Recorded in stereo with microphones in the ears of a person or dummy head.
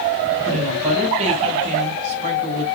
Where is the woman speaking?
35° right (ahead or behind), 6.5 m.